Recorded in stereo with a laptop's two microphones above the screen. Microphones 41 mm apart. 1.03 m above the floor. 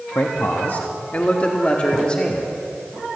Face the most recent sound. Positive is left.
turn(degrees=20)  # may be behind; listen again after turning